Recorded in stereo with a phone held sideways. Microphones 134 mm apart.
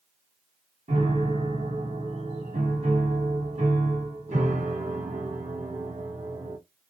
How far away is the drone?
No drone in this recording.